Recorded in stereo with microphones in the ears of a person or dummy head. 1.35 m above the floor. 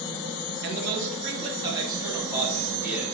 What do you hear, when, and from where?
0.6 s a man speaking: 60° right (ahead or behind), 1.4 m; by 3.0 s 10° right (ahead or behind), 3.5 m